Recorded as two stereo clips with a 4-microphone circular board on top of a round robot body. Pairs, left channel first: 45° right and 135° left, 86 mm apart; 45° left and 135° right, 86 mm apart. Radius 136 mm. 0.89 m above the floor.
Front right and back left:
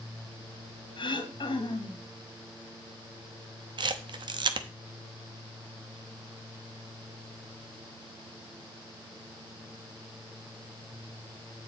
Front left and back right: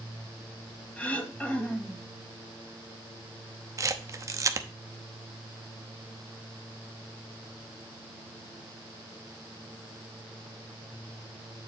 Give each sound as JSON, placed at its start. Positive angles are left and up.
{"t": 1.0, "sound": "throat clearing", "azimuth_deg": -30, "distance_m": 1.6}
{"t": 3.8, "sound": "a camera shutter", "azimuth_deg": 170, "distance_m": 0.7}